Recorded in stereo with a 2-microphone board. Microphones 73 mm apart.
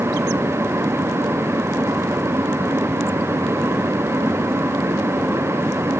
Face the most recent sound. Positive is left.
No sound to turn to.